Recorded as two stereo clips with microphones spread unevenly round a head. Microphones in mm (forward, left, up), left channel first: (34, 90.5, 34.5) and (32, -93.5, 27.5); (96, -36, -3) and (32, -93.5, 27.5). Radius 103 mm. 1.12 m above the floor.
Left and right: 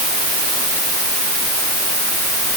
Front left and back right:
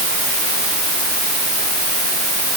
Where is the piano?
I don't hear a piano.